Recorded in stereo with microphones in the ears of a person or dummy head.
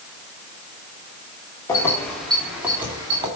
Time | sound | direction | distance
1.7 | keys jangling | 15° left (ahead or behind) | 2 m